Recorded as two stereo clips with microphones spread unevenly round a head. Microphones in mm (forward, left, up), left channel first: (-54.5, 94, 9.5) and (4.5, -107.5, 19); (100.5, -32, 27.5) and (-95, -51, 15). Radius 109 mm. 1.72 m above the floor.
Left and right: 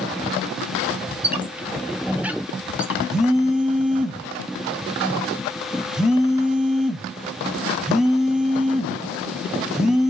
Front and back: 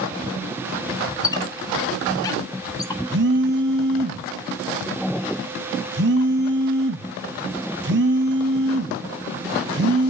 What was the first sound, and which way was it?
A squeak, 10° right.